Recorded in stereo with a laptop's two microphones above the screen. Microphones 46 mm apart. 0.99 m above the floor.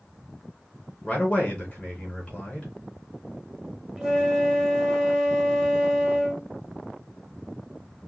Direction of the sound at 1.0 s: 15° left (ahead or behind).